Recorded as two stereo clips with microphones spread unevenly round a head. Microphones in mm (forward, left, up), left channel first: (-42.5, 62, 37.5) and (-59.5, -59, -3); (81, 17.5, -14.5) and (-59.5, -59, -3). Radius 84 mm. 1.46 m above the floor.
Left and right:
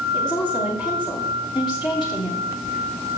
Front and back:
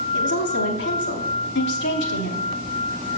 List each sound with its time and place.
0.1 s a woman speaking: 20° left, 2.5 m